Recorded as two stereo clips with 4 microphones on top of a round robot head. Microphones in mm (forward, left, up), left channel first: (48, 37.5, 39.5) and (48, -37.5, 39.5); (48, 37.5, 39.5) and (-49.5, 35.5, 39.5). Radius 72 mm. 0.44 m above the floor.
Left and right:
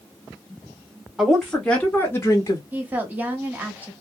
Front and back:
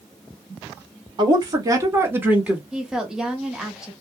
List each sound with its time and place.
1.2 s a woman speaking: 170° right, 1.3 m; by 2.6 s 105° left, 1.3 m
2.7 s a woman speaking: 105° right, 0.9 m